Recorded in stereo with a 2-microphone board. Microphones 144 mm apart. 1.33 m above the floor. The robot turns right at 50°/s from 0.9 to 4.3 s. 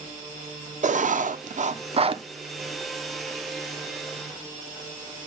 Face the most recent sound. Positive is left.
turn(degrees=65)